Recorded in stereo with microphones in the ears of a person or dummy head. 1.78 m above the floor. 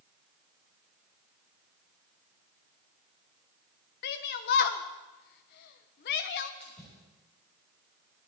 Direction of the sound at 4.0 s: 50° left (ahead or behind).